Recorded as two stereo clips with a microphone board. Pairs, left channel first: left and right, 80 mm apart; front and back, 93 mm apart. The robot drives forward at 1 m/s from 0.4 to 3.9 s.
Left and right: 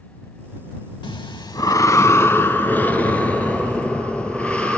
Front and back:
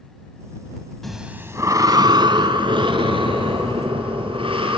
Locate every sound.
1.0 s breathing: 85° left, 0.8 m; by 4.8 s 165° left, 3 m